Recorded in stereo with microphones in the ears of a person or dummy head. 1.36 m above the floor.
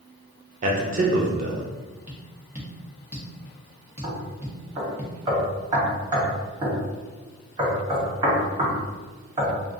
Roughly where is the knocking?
Right.